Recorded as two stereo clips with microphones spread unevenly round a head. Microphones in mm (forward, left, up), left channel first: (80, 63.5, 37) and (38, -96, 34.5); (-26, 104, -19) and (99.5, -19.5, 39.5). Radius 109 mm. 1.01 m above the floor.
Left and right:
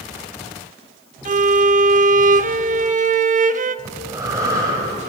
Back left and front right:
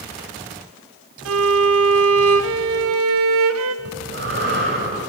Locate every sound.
1.2 s a violin: 65° right, 0.8 m
3.9 s breathing: 35° right, 7.5 m